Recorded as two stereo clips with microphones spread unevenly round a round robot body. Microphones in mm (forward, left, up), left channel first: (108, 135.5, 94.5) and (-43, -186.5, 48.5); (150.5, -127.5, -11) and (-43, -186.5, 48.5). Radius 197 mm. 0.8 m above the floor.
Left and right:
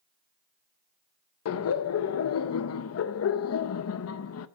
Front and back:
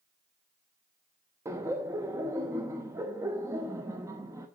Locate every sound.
1.4 s laughter: 105° left, 0.7 m